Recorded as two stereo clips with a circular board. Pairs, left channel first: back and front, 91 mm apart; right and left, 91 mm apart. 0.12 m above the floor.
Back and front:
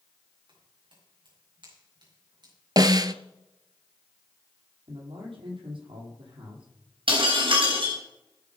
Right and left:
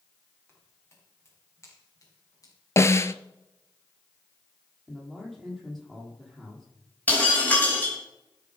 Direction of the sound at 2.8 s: 35° right.